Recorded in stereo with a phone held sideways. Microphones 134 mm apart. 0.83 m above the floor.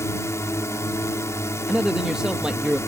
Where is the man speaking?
5° right (ahead or behind).